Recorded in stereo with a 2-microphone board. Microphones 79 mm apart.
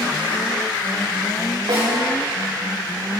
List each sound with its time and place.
1.7 s a snare drum: 75° right (ahead or behind), 5.5 m